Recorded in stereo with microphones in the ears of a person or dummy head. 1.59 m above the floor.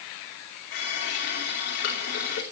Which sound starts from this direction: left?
A running tap, at 0.7 s.